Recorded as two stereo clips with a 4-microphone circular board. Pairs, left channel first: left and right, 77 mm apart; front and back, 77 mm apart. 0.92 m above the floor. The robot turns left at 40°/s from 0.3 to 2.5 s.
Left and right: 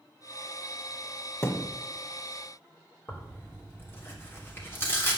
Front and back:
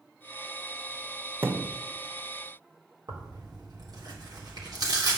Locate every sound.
1.4 s a thud: 130° left, 1.0 m; by 1.8 s 115° left, 1.0 m
3.1 s tearing paper: 150° left, 3 m